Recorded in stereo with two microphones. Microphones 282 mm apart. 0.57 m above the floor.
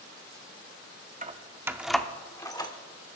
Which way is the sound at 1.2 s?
25° right (ahead or behind).